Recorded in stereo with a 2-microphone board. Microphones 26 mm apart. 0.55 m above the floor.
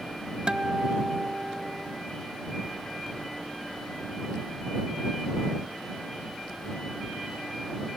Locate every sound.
0.5 s a guitar: 35° right (ahead or behind)